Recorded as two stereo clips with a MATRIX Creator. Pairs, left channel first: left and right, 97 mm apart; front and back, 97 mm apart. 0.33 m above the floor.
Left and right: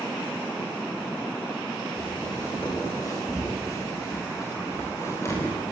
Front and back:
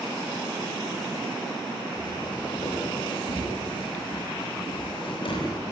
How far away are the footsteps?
About 9.5 m.